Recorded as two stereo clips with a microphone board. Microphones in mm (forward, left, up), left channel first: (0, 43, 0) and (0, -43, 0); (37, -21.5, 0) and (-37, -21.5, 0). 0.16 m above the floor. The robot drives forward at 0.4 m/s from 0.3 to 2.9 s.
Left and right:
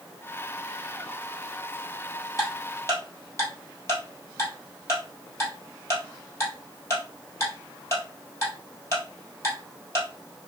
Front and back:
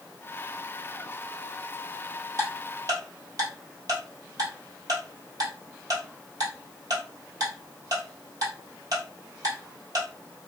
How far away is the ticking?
About 1.5 m.